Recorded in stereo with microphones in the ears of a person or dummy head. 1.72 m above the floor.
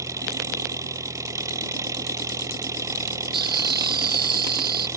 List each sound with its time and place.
0.0 s an engine running: 15° right (ahead or behind)
3.3 s laughter: 25° right (ahead or behind)